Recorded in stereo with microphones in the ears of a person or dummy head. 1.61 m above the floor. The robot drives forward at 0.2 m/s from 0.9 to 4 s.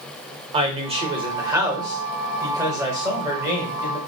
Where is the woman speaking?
25° right (ahead or behind), 0.7 m; by 4.0 s 15° right (ahead or behind), 1.3 m.